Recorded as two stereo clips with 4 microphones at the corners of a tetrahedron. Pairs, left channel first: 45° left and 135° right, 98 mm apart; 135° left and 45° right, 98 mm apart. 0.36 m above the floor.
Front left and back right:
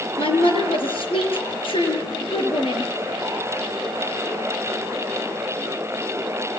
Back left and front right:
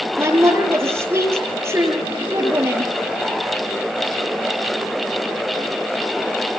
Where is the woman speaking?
20° left, 7 m.